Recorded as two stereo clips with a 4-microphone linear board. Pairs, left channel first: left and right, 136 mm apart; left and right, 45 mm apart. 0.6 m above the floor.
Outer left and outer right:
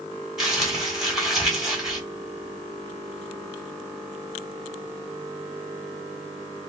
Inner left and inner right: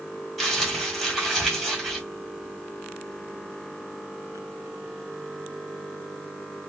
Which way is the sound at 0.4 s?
Centre (ahead or behind).